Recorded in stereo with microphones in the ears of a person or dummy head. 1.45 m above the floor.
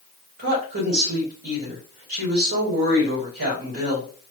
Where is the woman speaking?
80° right, 3 m.